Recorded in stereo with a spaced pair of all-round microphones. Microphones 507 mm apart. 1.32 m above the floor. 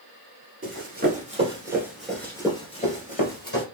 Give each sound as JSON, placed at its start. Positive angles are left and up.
{"t": 0.6, "sound": "running footsteps", "side_deg": -25, "distance_m": 1.4}